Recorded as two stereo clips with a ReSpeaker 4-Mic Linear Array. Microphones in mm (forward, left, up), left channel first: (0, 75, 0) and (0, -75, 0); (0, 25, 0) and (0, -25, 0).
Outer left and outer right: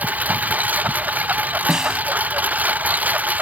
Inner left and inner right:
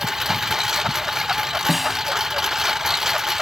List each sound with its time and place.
0.0 s a lawn mower: 10° right (ahead or behind)
1.7 s a snare drum: 5° right (ahead or behind)